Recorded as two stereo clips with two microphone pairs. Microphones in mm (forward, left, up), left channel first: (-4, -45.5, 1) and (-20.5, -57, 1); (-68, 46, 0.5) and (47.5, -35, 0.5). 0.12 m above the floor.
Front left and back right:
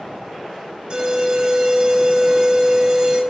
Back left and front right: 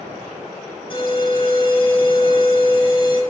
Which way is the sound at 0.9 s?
170° right.